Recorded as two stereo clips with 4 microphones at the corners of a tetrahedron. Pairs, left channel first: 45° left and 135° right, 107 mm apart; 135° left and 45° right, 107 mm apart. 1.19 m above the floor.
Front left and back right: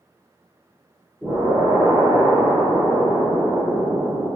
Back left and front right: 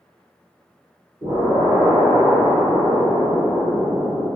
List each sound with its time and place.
1.2 s an explosion: 65° right, 1.5 m